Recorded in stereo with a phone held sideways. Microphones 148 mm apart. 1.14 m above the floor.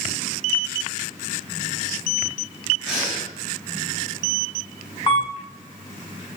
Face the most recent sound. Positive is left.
turn(degrees=35)  # may be behind; listen again after turning